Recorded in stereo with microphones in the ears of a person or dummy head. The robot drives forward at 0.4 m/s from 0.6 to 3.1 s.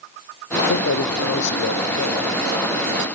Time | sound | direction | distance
0.7 | a man speaking | 60° left (ahead or behind) | 0.8 m